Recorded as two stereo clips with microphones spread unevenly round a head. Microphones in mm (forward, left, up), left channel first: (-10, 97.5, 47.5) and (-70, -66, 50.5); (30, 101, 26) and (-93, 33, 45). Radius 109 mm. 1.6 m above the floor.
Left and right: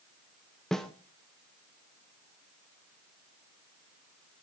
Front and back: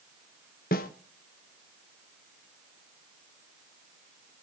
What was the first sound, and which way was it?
A snare drum, 20° right.